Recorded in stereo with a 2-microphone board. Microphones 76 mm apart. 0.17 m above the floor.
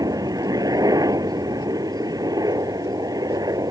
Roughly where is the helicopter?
Right.